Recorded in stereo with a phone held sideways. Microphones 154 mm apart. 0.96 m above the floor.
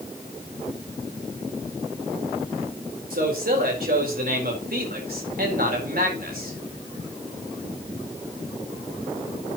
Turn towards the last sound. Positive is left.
turn(degrees=-80)